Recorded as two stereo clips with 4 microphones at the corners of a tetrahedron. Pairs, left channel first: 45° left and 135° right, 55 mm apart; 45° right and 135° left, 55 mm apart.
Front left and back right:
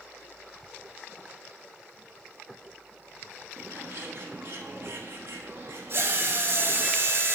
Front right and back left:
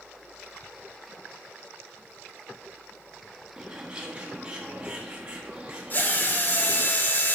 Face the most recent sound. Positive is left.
turn(degrees=-95)